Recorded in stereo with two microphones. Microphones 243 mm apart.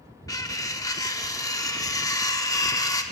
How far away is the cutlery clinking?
About 0.6 m.